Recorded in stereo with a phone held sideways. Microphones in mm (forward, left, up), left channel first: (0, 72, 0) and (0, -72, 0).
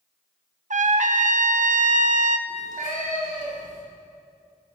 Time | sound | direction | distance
0.7 | a trumpet | 60° right (ahead or behind) | 0.5 m
2.5 | a cat meowing | 70° right (ahead or behind) | 3 m